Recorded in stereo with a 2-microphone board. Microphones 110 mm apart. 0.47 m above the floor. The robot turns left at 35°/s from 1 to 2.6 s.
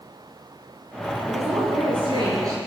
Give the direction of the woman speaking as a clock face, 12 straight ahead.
3 o'clock.